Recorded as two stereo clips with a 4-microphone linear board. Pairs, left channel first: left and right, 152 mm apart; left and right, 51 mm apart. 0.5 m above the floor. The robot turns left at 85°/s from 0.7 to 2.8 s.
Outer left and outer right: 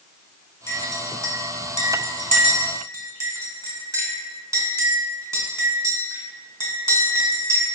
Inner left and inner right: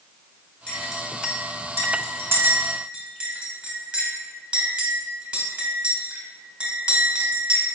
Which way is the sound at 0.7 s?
20° left (ahead or behind).